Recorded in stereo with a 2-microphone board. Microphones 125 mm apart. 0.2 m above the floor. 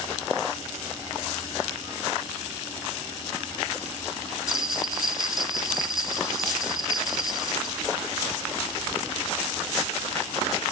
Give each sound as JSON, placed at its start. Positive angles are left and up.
{"t": 4.5, "sound": "a bell", "side_deg": -5, "distance_m": 0.8}